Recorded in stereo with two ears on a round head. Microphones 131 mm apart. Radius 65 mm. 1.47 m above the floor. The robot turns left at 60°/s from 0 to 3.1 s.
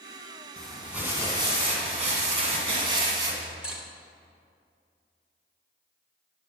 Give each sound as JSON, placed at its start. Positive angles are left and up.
{"t": 0.6, "sound": "crumpling", "azimuth_deg": 10, "distance_m": 1.9}
{"t": 3.4, "sound": "cutlery clinking", "side_deg": -5, "distance_m": 0.9}